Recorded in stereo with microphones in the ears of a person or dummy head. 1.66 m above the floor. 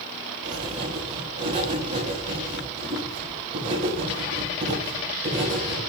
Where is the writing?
35° right (ahead or behind), 4.5 m.